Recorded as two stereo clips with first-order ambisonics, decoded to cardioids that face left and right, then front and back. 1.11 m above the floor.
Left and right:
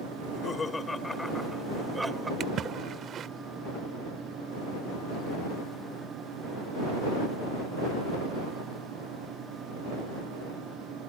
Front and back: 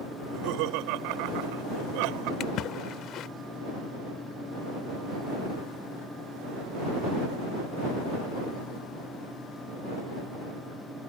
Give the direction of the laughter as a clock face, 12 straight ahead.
7 o'clock.